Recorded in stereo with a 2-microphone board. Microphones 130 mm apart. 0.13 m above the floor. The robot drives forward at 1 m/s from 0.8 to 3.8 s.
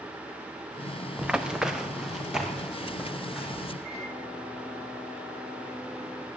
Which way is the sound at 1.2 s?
5° right (ahead or behind).